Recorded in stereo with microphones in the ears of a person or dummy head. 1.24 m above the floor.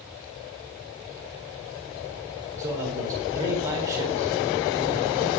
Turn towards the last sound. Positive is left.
turn(degrees=-15)  # may be behind; listen again after turning